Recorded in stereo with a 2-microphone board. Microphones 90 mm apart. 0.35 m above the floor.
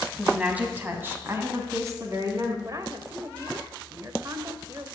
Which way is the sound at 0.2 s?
10° right (ahead or behind).